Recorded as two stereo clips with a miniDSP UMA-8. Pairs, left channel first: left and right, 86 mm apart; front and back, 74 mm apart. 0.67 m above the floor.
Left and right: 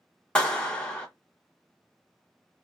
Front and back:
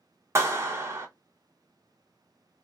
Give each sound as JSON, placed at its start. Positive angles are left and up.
{"t": 0.3, "sound": "a clap", "azimuth_deg": 160, "distance_m": 0.9}